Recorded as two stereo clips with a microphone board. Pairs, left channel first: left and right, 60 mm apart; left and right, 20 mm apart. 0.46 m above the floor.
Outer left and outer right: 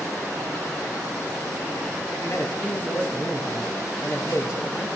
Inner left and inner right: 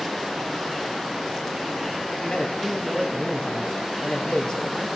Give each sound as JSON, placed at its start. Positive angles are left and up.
{"t": 2.2, "sound": "a man speaking", "side_deg": 55, "distance_m": 3.0}